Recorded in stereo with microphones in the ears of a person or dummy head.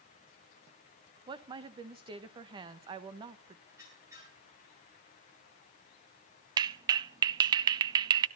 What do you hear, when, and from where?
1.3 s a woman speaking: 25° right (ahead or behind), 1.4 m
3.7 s a squeak: 15° right (ahead or behind), 9.5 m
6.6 s a clap: 25° right (ahead or behind), 0.5 m